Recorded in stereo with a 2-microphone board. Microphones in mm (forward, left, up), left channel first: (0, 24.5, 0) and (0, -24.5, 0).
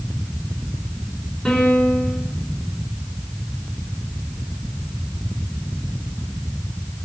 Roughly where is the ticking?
I don't hear ticking.